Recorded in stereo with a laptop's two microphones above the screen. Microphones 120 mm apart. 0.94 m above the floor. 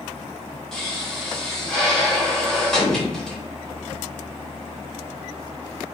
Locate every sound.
0.7 s a pop: 5° left (ahead or behind), 1.4 m